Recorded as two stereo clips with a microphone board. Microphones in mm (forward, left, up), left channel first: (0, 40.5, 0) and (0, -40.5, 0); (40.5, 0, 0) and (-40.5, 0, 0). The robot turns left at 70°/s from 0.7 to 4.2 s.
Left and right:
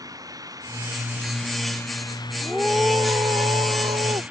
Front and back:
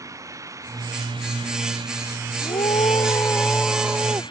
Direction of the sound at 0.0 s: 130° right.